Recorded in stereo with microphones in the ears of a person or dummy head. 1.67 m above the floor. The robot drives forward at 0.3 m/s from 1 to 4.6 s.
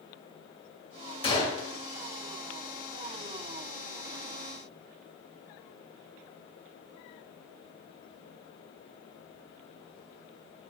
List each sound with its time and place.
1.2 s a gunshot: 30° left (ahead or behind), 1.0 m; by 1.6 s 25° left (ahead or behind), 1.1 m